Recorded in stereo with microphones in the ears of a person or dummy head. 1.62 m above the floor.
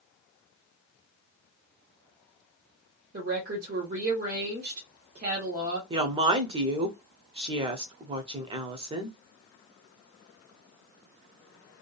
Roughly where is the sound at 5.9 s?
Right.